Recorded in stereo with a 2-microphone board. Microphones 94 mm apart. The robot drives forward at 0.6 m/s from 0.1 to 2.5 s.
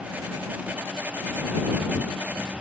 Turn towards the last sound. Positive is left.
No sound to turn to.